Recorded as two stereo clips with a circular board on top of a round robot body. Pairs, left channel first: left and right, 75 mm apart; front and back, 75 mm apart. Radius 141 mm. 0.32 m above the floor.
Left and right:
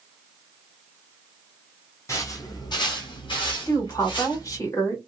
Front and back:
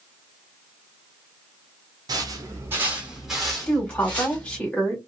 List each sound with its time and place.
2.1 s footsteps: 145° left, 0.8 m; by 4.7 s 65° left, 1.4 m
3.7 s a woman speaking: 70° left, 2 m